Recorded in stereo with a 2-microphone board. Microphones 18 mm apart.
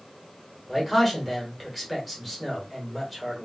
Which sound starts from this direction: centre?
A man speaking, at 0.7 s.